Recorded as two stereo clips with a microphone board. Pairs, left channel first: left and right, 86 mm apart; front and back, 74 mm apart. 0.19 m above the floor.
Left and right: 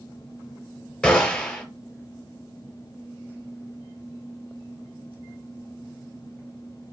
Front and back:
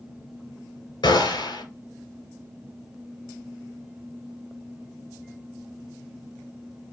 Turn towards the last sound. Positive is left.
turn(degrees=10)